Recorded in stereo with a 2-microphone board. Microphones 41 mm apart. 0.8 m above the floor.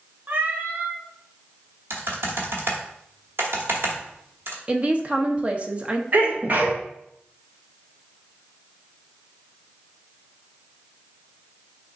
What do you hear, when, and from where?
0.3 s a cat meowing: 40° right (ahead or behind), 1.0 m
1.9 s typing on a keyboard: 65° right (ahead or behind), 1.4 m
4.7 s a woman speaking: 30° right (ahead or behind), 0.7 m
6.1 s a sneeze: 45° right (ahead or behind), 1.3 m